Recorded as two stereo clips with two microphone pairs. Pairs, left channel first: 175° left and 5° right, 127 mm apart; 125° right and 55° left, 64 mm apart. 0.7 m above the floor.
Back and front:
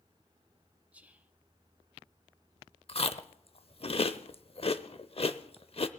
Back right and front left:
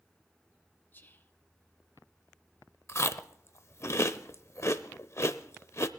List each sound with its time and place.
0.9 s whispering: 80° right, 1.0 m
2.9 s chewing: 160° right, 0.6 m